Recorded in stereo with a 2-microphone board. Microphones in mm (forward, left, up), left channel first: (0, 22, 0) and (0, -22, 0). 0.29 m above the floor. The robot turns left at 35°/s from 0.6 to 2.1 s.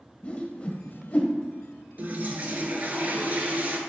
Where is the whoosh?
35° left (ahead or behind), 0.6 m; by 1.3 s 40° left (ahead or behind), 0.6 m.